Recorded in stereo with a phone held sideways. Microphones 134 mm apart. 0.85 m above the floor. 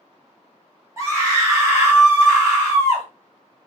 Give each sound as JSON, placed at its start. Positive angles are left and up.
{"t": 1.0, "sound": "a scream", "side_deg": -20, "distance_m": 1.3}